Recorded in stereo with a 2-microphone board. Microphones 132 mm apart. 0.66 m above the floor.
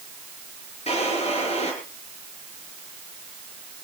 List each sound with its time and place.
0.9 s a drawer: 55° left (ahead or behind), 7 m